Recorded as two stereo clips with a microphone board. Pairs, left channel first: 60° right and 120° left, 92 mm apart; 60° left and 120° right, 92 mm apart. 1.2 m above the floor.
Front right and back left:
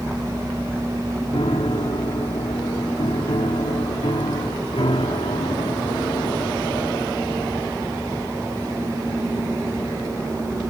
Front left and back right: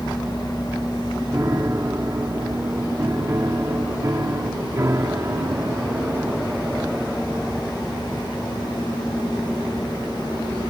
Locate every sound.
1.3 s a piano: 65° right